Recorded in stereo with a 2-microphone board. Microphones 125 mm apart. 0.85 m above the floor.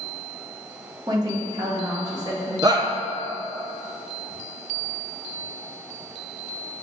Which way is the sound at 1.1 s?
30° right (ahead or behind).